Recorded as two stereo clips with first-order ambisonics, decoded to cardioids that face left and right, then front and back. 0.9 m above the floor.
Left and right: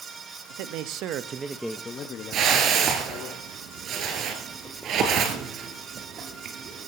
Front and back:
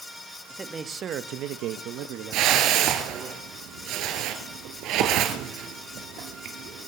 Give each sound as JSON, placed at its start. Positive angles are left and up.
{"t": 0.5, "sound": "a man speaking", "azimuth_deg": -100, "distance_m": 1.4}
{"t": 2.3, "sound": "a whoosh", "azimuth_deg": -140, "distance_m": 2.5}